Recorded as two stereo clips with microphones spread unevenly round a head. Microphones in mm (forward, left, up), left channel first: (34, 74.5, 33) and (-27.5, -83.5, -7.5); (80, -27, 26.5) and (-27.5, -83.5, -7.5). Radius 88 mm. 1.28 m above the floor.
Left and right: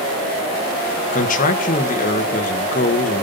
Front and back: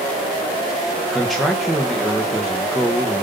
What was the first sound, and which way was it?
A man speaking, 120° left.